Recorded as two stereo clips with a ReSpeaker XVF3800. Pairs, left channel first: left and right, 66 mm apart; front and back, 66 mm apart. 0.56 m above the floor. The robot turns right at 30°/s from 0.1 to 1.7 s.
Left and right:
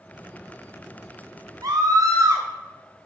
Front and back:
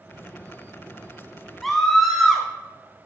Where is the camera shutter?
No camera shutter in this recording.